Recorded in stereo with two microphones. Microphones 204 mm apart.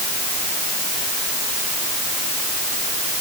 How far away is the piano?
I don't hear a piano.